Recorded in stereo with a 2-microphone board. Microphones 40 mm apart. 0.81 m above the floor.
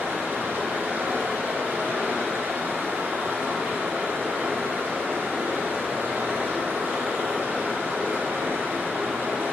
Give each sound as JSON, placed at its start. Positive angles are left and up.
{"t": 0.0, "sound": "running water", "side_deg": -60, "distance_m": 0.9}